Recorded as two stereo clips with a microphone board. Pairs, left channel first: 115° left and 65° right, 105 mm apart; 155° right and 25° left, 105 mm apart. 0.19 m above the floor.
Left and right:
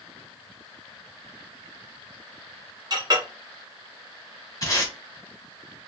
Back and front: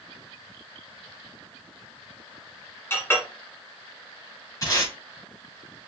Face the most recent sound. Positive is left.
turn(degrees=155)